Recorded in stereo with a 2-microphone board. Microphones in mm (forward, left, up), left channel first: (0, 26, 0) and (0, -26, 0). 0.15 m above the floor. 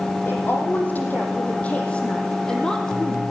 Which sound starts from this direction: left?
A woman speaking, at 0.2 s.